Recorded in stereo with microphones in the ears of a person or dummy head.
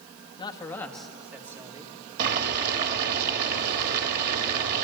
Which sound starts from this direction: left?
A man speaking, at 0.4 s.